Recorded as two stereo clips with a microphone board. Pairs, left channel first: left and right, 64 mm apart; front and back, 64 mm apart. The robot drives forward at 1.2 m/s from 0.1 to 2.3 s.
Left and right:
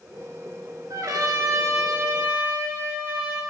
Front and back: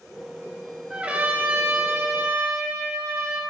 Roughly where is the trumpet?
Right.